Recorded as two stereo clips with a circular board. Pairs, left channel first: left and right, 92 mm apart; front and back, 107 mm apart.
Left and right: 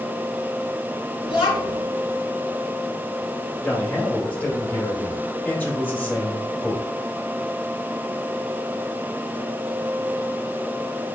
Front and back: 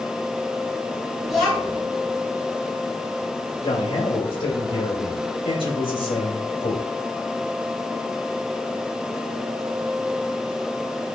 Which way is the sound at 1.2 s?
90° left.